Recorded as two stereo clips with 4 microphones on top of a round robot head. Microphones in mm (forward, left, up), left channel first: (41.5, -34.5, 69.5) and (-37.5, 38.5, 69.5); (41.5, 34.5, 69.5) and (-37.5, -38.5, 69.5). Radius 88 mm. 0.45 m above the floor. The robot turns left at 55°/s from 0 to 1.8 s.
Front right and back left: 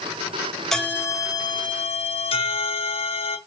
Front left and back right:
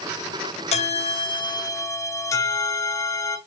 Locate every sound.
0.7 s a bell: 45° left, 2 m; by 3.4 s 15° right, 2 m